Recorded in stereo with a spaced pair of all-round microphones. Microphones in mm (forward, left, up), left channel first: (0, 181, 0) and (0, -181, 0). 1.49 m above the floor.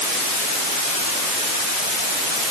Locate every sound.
Only background noise.